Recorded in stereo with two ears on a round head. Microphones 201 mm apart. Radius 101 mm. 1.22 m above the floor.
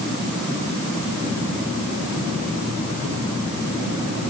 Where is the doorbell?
I don't hear a doorbell.